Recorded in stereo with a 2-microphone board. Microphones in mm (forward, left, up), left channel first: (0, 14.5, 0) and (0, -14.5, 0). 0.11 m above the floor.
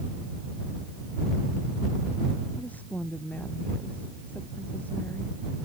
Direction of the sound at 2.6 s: 60° left (ahead or behind).